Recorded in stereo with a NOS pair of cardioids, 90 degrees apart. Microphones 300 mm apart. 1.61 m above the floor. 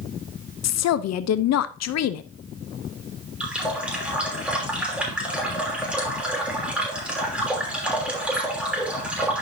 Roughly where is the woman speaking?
Ahead left.